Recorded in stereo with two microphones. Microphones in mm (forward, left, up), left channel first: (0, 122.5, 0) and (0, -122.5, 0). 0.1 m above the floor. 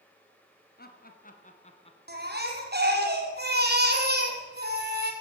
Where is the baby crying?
40° right (ahead or behind), 2.5 m.